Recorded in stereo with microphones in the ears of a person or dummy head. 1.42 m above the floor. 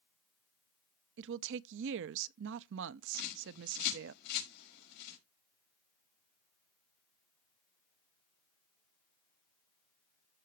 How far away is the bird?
About 5.5 m.